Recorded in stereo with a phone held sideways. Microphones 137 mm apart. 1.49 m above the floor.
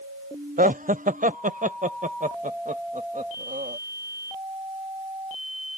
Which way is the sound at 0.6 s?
75° right (ahead or behind).